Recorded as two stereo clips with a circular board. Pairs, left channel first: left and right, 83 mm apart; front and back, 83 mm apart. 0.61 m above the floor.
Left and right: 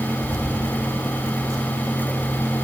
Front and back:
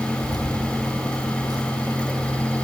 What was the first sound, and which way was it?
Keys jangling, 145° right.